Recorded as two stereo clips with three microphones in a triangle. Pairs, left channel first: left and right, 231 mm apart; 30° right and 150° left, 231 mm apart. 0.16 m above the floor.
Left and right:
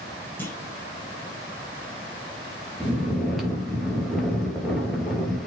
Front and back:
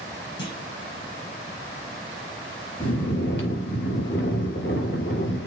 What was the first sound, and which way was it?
A clunk, 10° left.